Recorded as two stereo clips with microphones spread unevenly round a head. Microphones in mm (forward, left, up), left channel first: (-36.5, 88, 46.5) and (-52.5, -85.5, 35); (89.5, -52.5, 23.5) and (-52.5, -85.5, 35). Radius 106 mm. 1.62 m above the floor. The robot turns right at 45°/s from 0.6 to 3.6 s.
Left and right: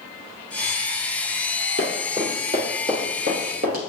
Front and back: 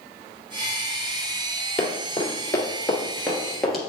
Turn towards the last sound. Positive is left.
turn(degrees=-85)